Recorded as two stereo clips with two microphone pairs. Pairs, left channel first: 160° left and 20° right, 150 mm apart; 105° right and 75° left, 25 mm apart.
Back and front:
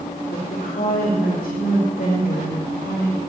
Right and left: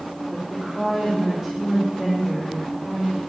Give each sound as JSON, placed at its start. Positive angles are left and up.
{"t": 0.3, "sound": "a woman speaking", "azimuth_deg": 140, "distance_m": 4.0}